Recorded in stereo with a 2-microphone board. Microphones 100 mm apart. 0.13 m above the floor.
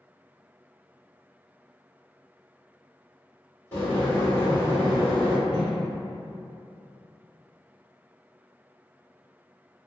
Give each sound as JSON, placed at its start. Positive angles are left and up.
{"t": 3.7, "sound": "boiling", "side_deg": 20, "distance_m": 1.8}
{"t": 5.5, "sound": "a whoosh", "side_deg": -10, "distance_m": 1.2}